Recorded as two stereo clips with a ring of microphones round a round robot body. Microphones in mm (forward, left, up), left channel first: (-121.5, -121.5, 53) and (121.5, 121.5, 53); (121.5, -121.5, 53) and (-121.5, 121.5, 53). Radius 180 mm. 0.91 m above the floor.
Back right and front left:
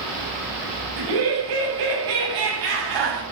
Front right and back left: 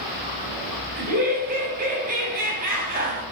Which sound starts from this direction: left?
Laughter, at 1.0 s.